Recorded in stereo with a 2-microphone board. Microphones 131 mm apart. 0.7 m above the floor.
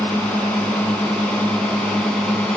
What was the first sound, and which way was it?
A drone, 10° left (ahead or behind).